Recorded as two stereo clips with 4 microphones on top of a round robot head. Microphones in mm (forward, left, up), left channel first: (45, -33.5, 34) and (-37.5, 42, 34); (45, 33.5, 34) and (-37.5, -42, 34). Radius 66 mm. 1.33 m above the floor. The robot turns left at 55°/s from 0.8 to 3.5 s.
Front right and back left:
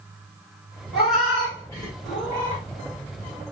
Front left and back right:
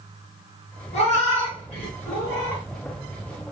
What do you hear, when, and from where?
0.9 s a cat meowing: 60° left, 1.3 m; by 2.6 s 35° right, 1.3 m